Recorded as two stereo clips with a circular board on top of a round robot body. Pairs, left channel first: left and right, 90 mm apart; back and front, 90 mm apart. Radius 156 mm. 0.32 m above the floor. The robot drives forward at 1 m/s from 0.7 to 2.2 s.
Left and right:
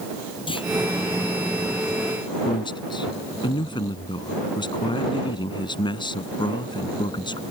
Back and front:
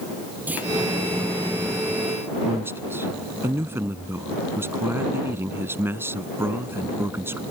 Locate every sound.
0.5 s a clunk: 70° left
2.5 s a man speaking: 65° left